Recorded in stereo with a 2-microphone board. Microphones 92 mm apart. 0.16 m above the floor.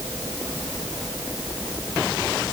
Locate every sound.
Only background noise.